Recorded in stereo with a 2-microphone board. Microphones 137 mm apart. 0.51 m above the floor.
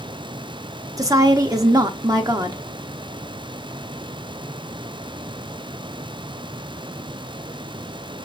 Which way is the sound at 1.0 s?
25° right (ahead or behind).